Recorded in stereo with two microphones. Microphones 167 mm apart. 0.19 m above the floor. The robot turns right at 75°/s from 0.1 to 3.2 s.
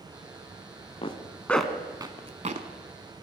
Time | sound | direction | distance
1.0 | a zipper | 35° left (ahead or behind) | 0.8 m